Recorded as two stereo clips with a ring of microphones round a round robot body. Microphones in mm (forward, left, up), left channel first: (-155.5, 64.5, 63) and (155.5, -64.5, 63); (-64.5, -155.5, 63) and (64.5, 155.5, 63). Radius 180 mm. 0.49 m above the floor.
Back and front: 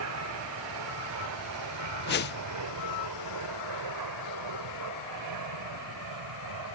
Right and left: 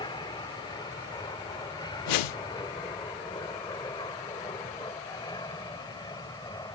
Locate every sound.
0.0 s an aircraft: 40° right; by 6.8 s 35° right
2.1 s a whoosh: 140° right